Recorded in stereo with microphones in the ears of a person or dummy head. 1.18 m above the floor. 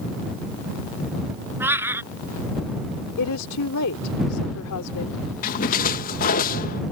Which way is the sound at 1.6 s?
15° right (ahead or behind).